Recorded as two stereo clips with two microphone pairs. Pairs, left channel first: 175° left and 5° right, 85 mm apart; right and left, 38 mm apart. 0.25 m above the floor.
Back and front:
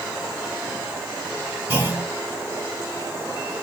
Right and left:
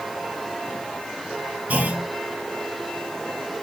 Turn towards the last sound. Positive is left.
turn(degrees=55)